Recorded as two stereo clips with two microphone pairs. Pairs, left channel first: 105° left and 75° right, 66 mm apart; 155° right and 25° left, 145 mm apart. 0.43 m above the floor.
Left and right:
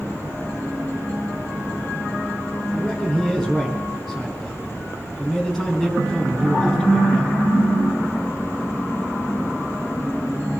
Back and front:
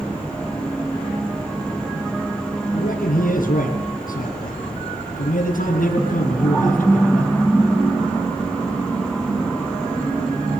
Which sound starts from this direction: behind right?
A man speaking, at 2.7 s.